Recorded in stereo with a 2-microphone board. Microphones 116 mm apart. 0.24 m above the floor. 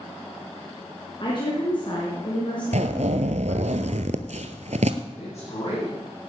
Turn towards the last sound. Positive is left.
turn(degrees=60)  # may be behind; listen again after turning